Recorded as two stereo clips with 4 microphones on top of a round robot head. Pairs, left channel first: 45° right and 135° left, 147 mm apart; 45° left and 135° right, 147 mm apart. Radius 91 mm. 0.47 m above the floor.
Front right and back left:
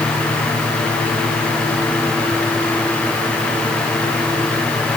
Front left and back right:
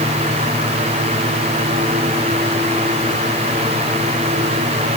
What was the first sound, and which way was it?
Only background noise.